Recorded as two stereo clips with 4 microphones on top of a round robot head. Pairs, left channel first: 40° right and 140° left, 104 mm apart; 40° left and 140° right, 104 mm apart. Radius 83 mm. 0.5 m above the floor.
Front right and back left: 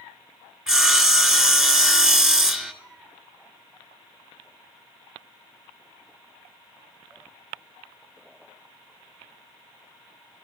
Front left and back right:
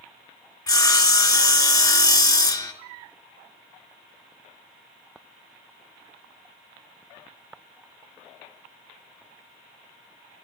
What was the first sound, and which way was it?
Sawing, 65° left.